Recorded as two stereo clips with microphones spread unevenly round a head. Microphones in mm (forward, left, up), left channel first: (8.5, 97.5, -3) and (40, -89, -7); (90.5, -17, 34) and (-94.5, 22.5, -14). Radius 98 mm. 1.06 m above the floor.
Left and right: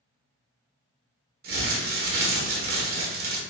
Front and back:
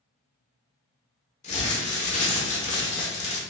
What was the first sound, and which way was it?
Crumpling, 70° right.